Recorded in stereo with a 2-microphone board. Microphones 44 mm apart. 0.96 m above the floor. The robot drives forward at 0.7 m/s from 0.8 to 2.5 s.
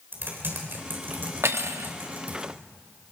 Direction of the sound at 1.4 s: 80° right.